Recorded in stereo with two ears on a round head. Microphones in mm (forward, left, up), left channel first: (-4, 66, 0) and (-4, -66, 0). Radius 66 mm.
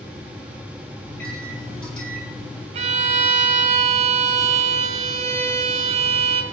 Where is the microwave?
5° left (ahead or behind), 6.5 m.